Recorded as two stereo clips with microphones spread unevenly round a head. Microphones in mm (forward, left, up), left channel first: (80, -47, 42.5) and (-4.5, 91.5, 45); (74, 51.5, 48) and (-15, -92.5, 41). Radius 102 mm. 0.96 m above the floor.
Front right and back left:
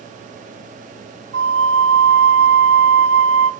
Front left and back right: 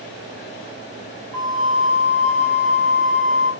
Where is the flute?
140° left, 0.6 m.